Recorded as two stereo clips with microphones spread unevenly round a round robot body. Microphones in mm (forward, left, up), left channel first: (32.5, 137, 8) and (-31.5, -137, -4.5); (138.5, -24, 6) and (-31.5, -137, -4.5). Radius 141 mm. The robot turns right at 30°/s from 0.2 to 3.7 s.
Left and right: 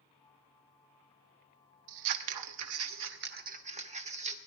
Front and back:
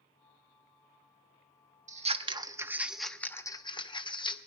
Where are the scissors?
90° right, 1.0 m; by 4.4 s 35° right, 1.0 m.